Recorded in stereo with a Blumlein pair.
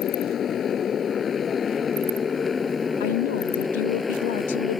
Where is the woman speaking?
55° left.